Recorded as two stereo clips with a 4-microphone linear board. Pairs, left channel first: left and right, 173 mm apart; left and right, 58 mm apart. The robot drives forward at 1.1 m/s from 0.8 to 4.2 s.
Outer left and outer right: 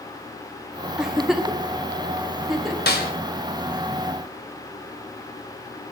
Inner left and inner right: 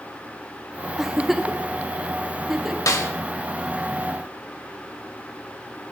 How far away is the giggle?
About 0.7 m.